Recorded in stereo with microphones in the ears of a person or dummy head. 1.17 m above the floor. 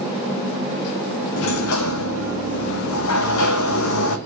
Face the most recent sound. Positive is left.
turn(degrees=75)  # may be behind; listen again after turning